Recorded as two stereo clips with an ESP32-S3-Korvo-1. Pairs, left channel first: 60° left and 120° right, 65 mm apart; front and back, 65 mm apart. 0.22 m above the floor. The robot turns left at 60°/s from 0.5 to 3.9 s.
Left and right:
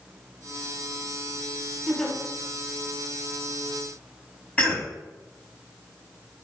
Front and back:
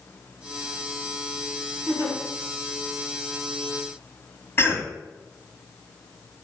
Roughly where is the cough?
Ahead.